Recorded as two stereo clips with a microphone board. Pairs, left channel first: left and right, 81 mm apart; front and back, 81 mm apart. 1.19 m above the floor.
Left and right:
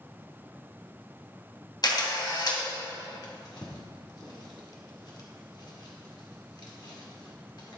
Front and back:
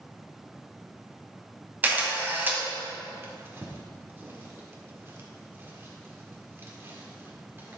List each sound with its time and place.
1.8 s a camera shutter: 115° left, 2.0 m
3.2 s a drawer: 120° left, 1.7 m